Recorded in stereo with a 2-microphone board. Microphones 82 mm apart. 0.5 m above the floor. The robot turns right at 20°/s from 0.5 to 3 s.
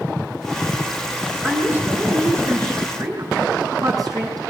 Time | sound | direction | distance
1.4 | a woman speaking | 165° right | 6 m